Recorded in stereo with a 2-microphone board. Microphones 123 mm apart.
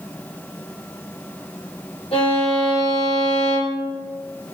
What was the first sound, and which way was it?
A violin, 55° left (ahead or behind).